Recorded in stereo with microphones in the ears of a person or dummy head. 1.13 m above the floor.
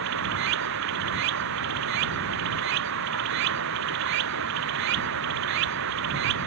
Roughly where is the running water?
Right.